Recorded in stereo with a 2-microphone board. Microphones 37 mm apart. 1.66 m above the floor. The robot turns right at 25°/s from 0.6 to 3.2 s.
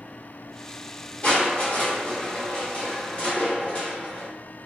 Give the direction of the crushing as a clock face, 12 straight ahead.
9 o'clock.